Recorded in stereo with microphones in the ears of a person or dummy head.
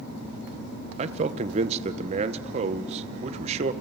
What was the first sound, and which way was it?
A man speaking, 40° right (ahead or behind).